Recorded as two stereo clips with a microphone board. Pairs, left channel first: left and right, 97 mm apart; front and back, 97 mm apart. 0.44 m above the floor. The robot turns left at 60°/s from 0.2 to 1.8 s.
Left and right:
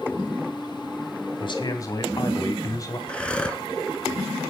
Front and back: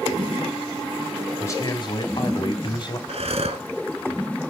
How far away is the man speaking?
About 3 m.